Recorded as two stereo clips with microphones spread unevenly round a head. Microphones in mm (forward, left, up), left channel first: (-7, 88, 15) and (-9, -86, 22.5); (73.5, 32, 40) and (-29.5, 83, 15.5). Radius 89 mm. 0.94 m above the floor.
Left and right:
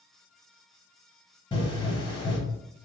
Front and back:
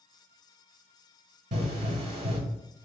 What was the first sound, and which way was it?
A pop, 145° left.